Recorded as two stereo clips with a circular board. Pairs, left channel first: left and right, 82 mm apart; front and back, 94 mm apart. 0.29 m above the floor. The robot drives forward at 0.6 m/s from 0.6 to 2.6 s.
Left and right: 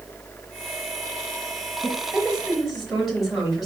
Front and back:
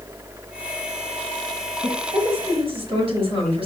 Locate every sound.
1.8 s a woman speaking: 170° right, 4.5 m; by 3.7 s 175° right, 4.5 m